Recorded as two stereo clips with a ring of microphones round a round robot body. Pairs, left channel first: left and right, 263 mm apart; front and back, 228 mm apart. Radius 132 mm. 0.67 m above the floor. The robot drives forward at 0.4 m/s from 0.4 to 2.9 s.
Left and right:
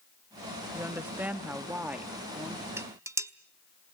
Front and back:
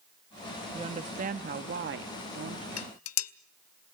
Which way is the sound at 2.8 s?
10° right.